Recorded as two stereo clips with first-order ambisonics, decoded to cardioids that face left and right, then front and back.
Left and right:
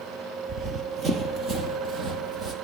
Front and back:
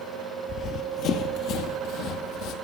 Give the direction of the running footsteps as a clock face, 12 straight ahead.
1 o'clock.